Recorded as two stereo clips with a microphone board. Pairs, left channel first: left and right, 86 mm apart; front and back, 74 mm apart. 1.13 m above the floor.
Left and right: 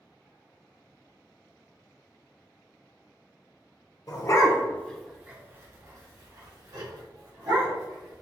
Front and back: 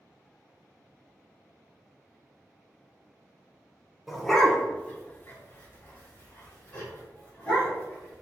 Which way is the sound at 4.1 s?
90° left.